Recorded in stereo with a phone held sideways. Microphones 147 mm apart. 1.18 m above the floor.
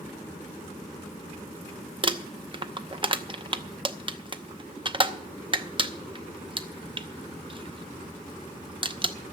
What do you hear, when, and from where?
2.0 s crumpling: 35° right (ahead or behind), 0.7 m